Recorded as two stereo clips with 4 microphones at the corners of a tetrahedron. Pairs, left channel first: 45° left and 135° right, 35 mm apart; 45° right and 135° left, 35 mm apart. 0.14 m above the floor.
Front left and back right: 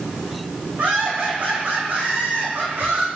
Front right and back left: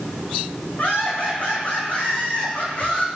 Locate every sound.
0.8 s laughter: 95° right, 9.5 m; by 3.1 s 100° right, 8 m